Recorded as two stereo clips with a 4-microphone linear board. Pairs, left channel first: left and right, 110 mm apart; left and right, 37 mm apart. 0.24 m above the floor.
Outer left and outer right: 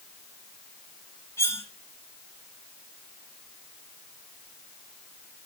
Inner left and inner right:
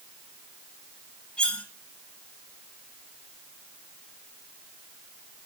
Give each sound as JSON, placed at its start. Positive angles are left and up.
{"t": 1.4, "sound": "cutlery clinking", "side_deg": 25, "distance_m": 2.5}